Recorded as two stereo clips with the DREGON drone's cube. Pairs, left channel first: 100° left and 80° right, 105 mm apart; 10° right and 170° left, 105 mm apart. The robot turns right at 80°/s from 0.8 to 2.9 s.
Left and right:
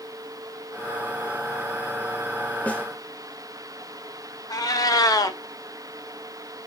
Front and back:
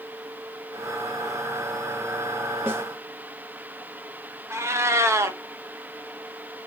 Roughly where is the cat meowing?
Behind left.